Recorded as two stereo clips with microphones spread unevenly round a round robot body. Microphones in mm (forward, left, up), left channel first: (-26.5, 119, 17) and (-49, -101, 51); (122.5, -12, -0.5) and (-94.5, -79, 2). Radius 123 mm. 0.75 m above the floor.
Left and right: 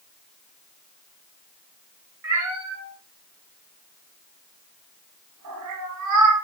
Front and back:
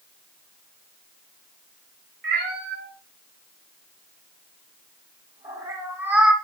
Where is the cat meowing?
120° right, 3.5 m; by 6.3 s 75° right, 1.8 m.